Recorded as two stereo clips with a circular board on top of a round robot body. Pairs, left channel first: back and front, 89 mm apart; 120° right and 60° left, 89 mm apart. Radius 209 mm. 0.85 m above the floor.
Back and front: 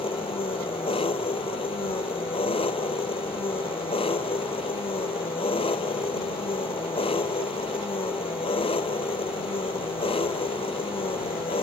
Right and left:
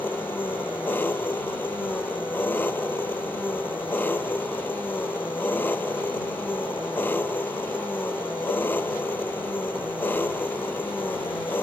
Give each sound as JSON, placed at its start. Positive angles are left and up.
{"t": 0.0, "sound": "an engine running", "azimuth_deg": 170}